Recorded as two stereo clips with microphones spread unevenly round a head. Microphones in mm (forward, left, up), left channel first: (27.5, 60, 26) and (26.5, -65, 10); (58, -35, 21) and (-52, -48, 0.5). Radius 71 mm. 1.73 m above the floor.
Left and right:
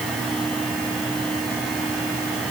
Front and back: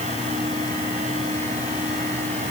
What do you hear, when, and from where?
Only background noise.